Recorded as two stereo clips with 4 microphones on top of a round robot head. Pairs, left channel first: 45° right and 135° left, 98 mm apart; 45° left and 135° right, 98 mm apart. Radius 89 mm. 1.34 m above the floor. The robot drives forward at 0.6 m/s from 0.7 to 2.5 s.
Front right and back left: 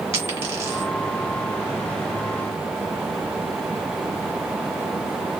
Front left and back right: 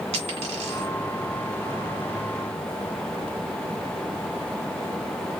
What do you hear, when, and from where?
0.1 s a dropped coin: 160° right, 2.5 m